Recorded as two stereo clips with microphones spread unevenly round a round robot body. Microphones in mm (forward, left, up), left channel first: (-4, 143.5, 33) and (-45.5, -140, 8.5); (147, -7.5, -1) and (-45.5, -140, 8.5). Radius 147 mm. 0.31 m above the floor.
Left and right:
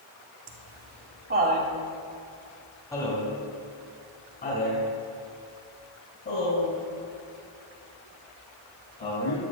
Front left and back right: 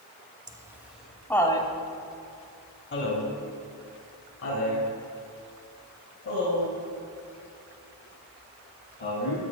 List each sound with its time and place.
0.5 s laughter: 75° right, 2.5 m; by 9.4 s 35° left, 10.5 m